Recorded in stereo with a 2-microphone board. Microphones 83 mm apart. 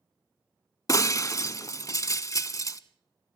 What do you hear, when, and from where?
0.9 s breaking glass: 40° left (ahead or behind), 0.6 m